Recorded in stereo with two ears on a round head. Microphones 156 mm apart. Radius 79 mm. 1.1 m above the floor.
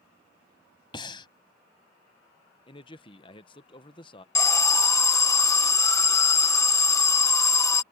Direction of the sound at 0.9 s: 25° left (ahead or behind).